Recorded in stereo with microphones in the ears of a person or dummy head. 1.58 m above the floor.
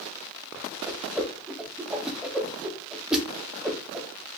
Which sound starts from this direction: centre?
A whoosh, at 0.9 s.